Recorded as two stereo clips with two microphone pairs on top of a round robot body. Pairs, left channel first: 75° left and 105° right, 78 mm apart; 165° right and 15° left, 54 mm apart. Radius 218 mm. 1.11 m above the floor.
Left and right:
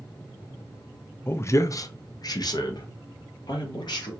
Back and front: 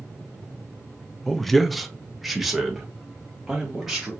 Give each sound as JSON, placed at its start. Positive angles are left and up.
{"t": 1.3, "sound": "a man speaking", "azimuth_deg": 100, "distance_m": 0.7}